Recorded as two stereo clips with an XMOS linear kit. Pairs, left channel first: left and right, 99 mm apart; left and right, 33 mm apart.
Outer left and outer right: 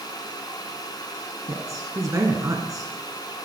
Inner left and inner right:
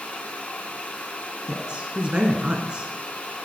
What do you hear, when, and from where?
1.5 s a woman speaking: 35° right (ahead or behind), 1.4 m